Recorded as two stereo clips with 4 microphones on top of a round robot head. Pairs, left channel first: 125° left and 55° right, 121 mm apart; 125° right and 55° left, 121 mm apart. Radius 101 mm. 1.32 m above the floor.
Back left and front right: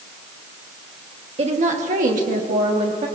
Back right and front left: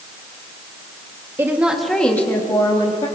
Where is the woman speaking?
15° right, 1.5 m; by 3.1 s 80° right, 2 m.